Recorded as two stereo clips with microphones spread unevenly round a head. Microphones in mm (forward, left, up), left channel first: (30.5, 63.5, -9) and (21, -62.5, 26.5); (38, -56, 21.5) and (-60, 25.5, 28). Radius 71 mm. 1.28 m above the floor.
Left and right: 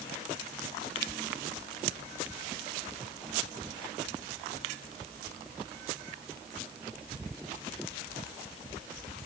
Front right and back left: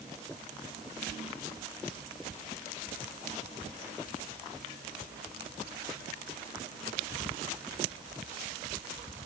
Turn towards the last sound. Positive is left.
No sound to turn to.